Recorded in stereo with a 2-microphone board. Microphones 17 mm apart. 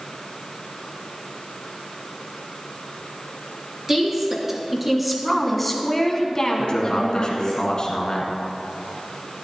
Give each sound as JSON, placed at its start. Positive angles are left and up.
{"t": 3.9, "sound": "a woman speaking", "side_deg": -20, "distance_m": 2.5}
{"t": 6.6, "sound": "a man speaking", "side_deg": 45, "distance_m": 1.7}